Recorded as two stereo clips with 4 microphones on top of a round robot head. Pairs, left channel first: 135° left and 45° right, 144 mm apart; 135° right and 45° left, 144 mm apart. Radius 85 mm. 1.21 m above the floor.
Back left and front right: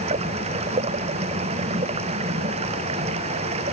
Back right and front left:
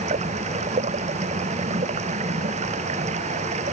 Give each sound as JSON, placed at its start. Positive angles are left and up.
{"t": 0.0, "sound": "running water", "azimuth_deg": 0}